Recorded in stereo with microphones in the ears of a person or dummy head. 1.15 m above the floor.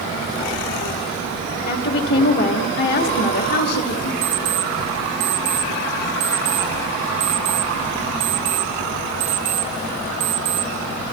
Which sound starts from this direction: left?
A woman speaking, at 1.7 s.